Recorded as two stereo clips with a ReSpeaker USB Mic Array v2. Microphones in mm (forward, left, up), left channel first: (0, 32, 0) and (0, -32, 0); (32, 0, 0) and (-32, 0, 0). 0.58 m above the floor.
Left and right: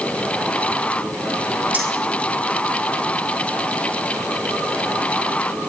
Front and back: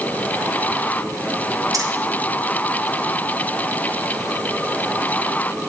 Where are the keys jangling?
155° right, 3.5 m.